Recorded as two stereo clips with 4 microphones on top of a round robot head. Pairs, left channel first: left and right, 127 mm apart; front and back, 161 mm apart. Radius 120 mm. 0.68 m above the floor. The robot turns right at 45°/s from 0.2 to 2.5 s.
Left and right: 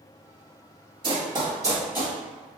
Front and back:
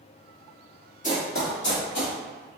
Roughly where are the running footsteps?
Ahead right.